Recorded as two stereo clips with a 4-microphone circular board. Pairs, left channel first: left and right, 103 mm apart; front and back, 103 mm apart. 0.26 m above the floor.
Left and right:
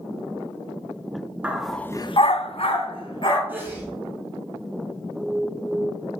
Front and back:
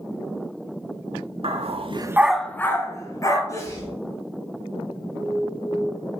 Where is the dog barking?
165° right, 1.0 m; by 3.4 s 55° left, 2 m.